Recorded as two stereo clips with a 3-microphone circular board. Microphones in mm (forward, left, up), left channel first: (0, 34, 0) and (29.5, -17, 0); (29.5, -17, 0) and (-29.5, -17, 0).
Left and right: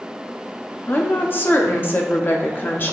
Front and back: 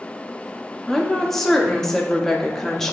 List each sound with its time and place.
0.9 s a woman speaking: 75° left, 0.7 m